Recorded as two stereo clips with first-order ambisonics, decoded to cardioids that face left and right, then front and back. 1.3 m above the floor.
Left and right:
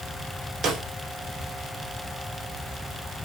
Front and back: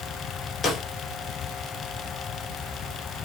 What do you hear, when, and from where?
0.6 s a snare drum: 55° right, 0.7 m